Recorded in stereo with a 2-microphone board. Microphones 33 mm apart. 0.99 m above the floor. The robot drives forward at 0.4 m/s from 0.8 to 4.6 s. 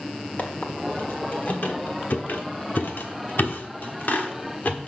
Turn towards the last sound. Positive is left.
turn(degrees=55)  # may be behind; listen again after turning